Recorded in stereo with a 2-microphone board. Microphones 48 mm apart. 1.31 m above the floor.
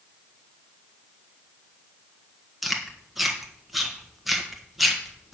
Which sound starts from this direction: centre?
Chewing, at 2.6 s.